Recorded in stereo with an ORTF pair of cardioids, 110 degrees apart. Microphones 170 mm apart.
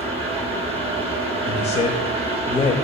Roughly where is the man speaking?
Ahead left.